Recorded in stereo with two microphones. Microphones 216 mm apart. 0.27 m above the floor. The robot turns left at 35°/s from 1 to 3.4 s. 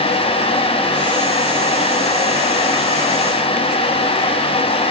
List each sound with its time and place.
Only background noise.